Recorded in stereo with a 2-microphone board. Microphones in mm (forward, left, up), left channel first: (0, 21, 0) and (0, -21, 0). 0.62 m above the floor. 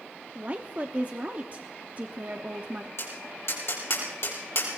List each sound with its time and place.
0.3 s a woman speaking: 35° right (ahead or behind), 1.0 m
3.0 s tapping: 60° left (ahead or behind), 4 m